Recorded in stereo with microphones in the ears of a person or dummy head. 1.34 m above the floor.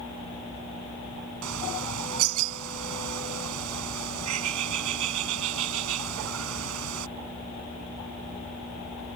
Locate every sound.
1.4 s a bird: 85° right